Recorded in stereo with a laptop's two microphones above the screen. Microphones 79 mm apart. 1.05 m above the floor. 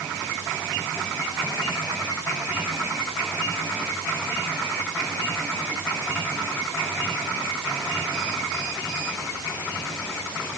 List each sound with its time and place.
Only background noise.